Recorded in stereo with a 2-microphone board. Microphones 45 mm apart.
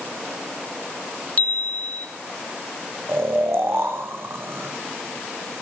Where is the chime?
35° left (ahead or behind), 0.9 m.